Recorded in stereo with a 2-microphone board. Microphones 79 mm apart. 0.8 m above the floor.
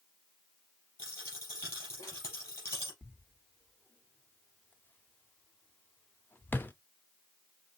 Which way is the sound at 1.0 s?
35° left (ahead or behind).